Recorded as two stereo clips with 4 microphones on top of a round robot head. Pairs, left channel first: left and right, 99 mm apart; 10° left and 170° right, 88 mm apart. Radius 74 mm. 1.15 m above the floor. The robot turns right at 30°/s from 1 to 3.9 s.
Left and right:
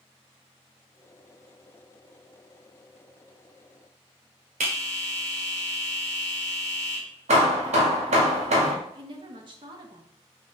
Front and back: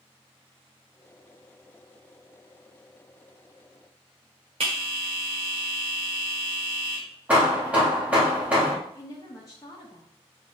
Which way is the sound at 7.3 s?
90° right.